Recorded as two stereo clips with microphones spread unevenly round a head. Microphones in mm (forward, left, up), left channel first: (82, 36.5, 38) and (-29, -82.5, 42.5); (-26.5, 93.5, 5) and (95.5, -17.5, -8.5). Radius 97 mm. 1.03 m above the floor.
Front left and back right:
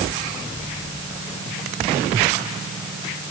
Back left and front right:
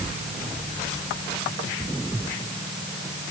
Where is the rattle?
No rattle in this recording.